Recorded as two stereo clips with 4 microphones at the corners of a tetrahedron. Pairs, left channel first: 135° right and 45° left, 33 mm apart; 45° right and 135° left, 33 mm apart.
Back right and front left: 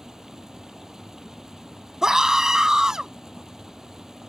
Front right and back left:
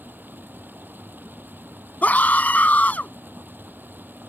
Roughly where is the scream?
Ahead right.